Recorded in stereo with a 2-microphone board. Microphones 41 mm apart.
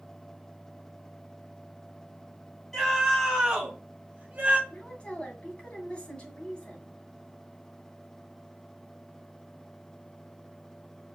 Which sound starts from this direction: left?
A woman speaking, at 4.7 s.